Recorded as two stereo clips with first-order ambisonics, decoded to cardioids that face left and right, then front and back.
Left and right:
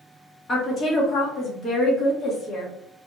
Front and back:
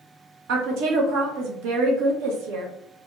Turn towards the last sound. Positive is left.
turn(degrees=155)